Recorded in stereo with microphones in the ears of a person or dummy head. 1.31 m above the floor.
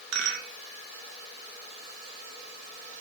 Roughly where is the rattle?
Right.